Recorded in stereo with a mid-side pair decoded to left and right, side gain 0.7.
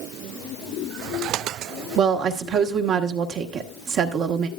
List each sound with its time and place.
2.0 s a woman speaking: 50° right, 1.2 m